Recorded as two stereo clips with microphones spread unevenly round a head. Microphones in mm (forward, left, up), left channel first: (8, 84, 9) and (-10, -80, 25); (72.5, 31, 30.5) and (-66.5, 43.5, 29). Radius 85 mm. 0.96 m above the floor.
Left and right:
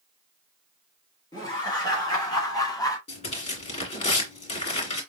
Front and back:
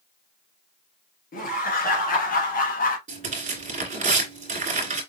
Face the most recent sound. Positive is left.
turn(degrees=140)